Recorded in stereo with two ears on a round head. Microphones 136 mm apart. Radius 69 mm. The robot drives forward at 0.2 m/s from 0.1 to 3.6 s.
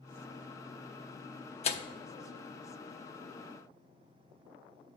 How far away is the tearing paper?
About 0.8 m.